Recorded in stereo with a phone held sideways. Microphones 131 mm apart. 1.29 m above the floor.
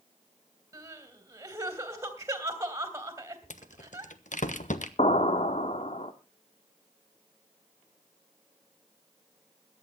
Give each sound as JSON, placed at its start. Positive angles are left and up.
{"t": 0.7, "sound": "crying", "side_deg": -20, "distance_m": 2.5}
{"t": 3.5, "sound": "a rattle", "side_deg": 70, "distance_m": 1.2}
{"t": 5.0, "sound": "an explosion", "side_deg": 55, "distance_m": 1.3}